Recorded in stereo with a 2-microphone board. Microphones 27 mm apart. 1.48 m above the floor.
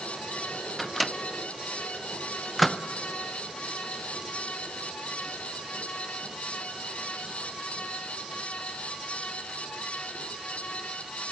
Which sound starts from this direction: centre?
A microwave, at 0.8 s.